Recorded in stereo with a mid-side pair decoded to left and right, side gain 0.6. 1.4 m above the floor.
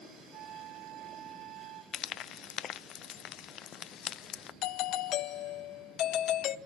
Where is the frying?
55° left, 0.9 m.